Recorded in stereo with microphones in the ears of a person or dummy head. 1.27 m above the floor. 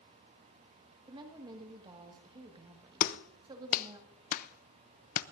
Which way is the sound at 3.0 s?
45° left (ahead or behind).